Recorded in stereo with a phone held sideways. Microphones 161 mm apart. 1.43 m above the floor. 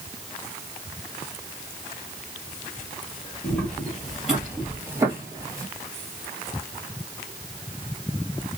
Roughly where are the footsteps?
Centre.